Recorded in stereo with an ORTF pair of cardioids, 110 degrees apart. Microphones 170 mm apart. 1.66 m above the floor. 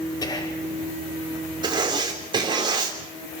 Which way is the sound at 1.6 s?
25° right.